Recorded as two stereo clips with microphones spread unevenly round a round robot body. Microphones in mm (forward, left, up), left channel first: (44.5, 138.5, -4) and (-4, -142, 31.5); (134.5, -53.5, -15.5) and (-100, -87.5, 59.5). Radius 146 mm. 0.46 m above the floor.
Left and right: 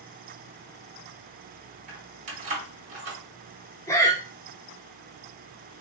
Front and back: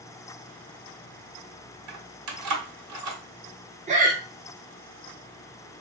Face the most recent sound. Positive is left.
turn(degrees=125)